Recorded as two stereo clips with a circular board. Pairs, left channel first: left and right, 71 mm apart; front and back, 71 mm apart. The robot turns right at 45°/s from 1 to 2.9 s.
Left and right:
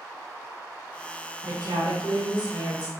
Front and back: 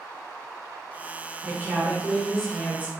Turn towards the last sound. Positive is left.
turn(degrees=-60)